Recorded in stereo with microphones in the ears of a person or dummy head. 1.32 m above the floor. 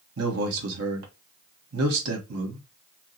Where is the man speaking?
80° right, 1.5 m.